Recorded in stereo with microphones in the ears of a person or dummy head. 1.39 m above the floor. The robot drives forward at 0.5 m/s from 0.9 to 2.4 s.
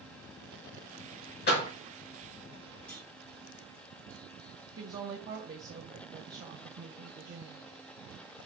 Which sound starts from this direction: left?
A door slam, at 1.5 s.